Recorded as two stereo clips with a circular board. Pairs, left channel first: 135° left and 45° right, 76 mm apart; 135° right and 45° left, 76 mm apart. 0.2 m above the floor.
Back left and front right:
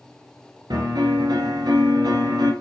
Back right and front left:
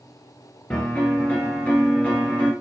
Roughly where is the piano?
Ahead right.